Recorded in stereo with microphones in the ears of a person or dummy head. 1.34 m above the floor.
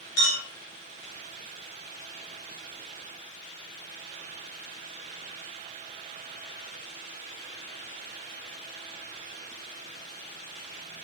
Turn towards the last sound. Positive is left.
turn(degrees=70)  # may be behind; listen again after turning